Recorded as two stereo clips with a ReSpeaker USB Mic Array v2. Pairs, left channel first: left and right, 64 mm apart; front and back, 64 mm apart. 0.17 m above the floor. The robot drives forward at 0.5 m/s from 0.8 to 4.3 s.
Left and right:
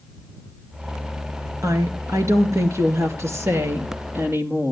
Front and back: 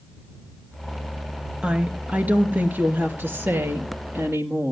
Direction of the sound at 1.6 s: 110° right.